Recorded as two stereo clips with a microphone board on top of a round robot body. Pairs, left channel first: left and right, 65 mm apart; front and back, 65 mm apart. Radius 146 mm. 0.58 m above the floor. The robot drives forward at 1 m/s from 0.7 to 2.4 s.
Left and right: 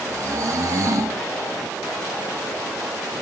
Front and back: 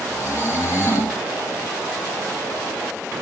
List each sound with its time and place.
0.1 s snoring: 45° right, 6 m; by 1.2 s 50° right, 6 m